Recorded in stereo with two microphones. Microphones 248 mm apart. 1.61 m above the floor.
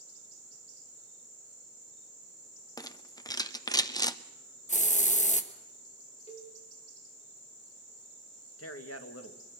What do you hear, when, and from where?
2.8 s a rattle: 15° left (ahead or behind), 0.8 m
4.7 s a hiss: 30° left (ahead or behind), 1.3 m
6.3 s a cowbell: 25° left (ahead or behind), 3 m
8.6 s a man speaking: 70° left (ahead or behind), 2 m